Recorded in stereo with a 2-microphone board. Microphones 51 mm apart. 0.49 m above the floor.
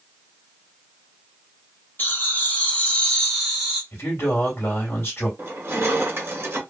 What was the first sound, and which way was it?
Laughter, 40° left (ahead or behind).